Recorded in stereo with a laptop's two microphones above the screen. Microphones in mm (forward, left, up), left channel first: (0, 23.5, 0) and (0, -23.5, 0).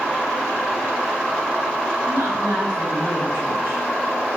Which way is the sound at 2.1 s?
75° right (ahead or behind).